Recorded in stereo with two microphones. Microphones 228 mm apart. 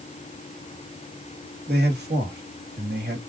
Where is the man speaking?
45° right (ahead or behind), 2 m.